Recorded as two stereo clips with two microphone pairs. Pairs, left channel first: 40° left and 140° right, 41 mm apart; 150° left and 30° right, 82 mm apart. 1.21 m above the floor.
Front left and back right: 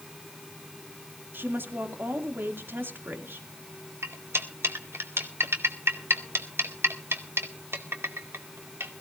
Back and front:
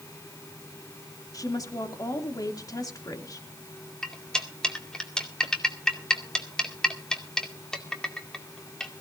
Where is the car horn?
No car horn in this recording.